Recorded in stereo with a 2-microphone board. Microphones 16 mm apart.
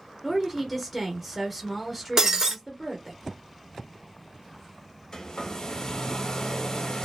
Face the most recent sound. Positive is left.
turn(degrees=45)  # may be behind; listen again after turning